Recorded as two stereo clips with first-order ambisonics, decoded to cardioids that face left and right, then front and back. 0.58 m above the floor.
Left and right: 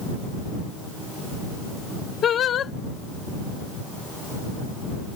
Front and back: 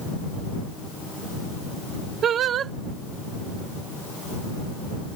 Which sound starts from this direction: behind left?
Singing, at 2.2 s.